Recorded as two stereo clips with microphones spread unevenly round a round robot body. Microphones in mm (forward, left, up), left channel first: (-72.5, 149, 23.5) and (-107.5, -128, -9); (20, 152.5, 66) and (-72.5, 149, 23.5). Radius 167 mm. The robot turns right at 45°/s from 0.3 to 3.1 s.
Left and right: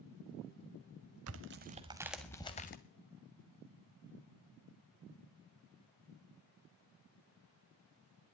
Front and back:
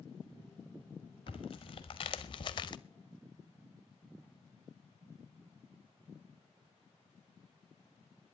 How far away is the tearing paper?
About 0.5 m.